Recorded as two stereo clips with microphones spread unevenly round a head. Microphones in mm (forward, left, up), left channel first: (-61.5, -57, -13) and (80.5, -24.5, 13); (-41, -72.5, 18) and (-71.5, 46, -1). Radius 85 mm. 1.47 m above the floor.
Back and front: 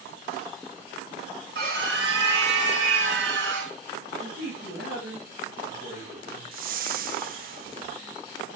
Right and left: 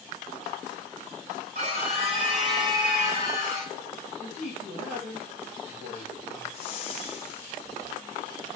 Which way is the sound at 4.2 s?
60° left.